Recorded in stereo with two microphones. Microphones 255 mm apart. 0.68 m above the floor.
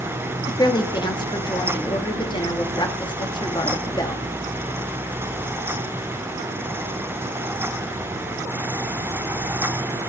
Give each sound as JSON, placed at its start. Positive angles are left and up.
{"t": 0.5, "sound": "a woman speaking", "side_deg": 20, "distance_m": 1.2}